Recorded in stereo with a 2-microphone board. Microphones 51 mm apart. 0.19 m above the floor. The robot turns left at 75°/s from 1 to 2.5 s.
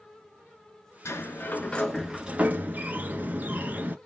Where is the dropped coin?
I don't hear a dropped coin.